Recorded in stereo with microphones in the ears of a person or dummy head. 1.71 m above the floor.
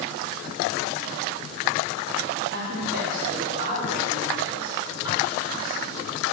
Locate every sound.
2.5 s a woman speaking: 55° right (ahead or behind), 1.7 m; by 6.0 s 5° right (ahead or behind), 4 m